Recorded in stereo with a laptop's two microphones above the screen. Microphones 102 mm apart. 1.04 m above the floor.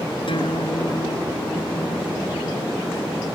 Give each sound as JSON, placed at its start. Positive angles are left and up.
{"t": 0.3, "sound": "a guitar", "side_deg": 65}